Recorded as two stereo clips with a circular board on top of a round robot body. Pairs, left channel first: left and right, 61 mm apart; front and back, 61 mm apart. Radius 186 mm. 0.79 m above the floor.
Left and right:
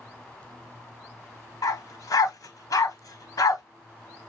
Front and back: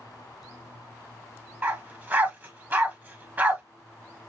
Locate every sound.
1.6 s a dog barking: 115° left, 1.4 m